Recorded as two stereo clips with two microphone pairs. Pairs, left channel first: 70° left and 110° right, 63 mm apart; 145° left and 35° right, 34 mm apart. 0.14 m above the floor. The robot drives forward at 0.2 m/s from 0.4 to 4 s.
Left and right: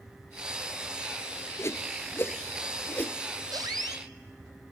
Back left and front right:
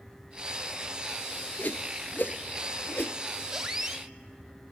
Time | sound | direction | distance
1.6 | a whoosh | 115° left | 0.8 m
3.5 | a squeak | 110° right | 1.2 m